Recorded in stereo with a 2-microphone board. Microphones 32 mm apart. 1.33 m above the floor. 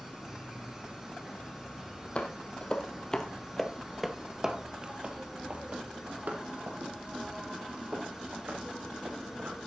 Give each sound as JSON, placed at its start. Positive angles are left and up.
{"t": 0.0, "sound": "an insect", "side_deg": -15, "distance_m": 1.9}
{"t": 2.1, "sound": "footsteps", "side_deg": 35, "distance_m": 2.5}